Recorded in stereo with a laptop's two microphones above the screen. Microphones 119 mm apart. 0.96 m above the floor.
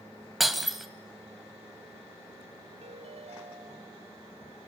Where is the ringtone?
65° right (ahead or behind), 1.4 m.